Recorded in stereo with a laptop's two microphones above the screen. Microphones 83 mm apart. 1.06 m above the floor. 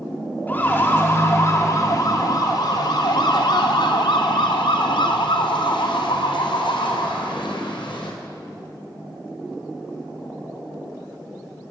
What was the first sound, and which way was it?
A siren, 20° left (ahead or behind).